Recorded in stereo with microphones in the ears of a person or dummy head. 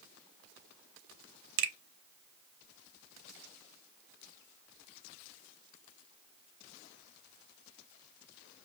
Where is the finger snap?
55° right (ahead or behind), 0.7 m.